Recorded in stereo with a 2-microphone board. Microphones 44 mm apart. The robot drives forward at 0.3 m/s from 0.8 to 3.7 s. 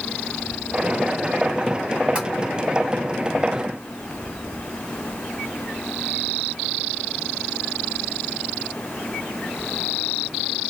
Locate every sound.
2.1 s tapping: 25° right (ahead or behind), 1.4 m